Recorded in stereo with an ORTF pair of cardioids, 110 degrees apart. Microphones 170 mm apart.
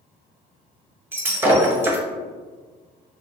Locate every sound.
1.1 s breaking glass: 15° right, 0.7 m